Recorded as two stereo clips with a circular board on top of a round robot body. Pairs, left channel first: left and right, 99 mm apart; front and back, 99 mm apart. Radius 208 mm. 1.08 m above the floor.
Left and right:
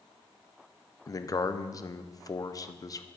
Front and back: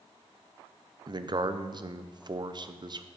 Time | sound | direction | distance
1.1 | a man speaking | 140° left | 0.7 m